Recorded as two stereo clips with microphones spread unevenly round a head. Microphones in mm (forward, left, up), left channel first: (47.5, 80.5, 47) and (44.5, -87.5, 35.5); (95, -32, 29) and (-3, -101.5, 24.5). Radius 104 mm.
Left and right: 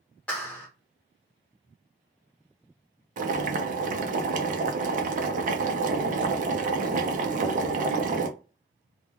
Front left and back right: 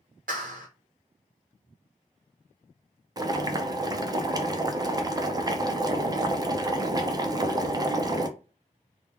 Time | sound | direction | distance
0.3 | a clap | 170° left | 0.5 m
3.2 | boiling | 95° right | 0.6 m